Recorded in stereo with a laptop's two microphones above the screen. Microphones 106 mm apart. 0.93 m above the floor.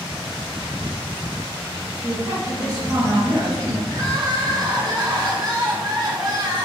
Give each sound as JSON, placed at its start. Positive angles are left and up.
{"t": 2.0, "sound": "a woman speaking", "side_deg": -35, "distance_m": 1.0}
{"t": 3.9, "sound": "crying", "side_deg": -40, "distance_m": 0.5}